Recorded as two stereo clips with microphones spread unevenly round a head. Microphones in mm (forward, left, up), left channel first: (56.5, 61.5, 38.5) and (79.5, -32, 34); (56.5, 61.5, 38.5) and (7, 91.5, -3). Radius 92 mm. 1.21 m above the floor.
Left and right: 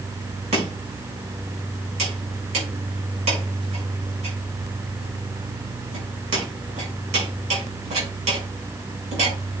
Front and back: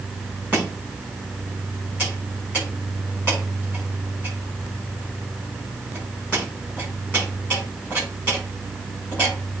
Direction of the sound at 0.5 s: 110° right.